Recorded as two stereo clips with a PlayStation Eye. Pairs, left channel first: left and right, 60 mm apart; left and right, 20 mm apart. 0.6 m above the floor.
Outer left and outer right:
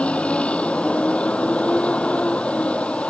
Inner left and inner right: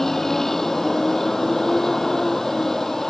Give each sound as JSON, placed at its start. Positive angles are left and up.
{"t": 0.0, "sound": "a vehicle", "side_deg": 20}